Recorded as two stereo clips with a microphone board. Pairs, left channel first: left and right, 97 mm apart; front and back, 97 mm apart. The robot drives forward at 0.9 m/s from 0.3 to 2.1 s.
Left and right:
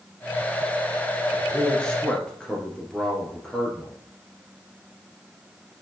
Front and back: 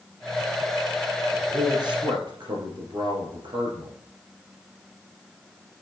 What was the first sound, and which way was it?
A man speaking, 165° left.